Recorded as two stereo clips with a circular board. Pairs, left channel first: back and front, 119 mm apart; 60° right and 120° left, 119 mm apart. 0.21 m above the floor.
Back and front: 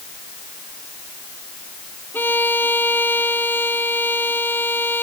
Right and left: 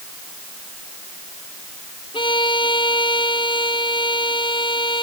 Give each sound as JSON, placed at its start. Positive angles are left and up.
{"t": 2.1, "sound": "a violin", "azimuth_deg": -105}